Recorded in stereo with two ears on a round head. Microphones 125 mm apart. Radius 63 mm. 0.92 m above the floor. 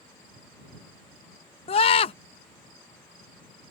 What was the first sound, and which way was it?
A scream, 40° left (ahead or behind).